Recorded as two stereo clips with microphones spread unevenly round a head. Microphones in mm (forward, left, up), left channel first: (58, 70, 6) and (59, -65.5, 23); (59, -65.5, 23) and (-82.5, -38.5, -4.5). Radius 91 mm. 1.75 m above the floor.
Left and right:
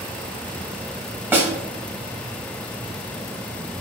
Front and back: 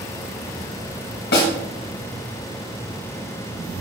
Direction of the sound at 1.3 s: 15° right.